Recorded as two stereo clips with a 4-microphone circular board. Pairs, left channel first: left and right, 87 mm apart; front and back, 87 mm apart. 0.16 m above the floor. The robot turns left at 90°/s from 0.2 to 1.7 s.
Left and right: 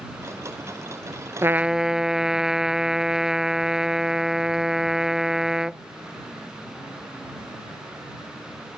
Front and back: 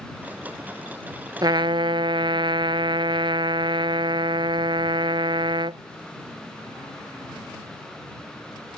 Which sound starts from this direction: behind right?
A trumpet, at 1.4 s.